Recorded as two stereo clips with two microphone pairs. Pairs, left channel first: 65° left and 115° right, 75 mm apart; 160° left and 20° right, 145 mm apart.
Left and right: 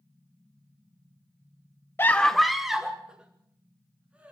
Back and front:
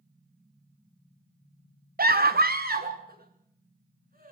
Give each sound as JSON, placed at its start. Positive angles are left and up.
{"t": 2.0, "sound": "a scream", "azimuth_deg": 0, "distance_m": 0.5}